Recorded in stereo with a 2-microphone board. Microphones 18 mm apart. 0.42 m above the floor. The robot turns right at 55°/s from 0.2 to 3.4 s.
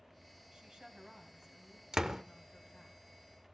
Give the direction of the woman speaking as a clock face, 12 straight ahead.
2 o'clock.